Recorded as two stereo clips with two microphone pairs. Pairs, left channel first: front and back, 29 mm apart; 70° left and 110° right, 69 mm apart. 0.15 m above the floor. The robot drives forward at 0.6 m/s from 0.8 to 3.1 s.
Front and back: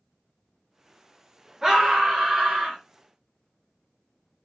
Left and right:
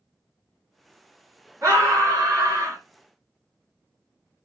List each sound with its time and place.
1.6 s a scream: 120° right, 2 m; by 2.8 s 140° right, 2.5 m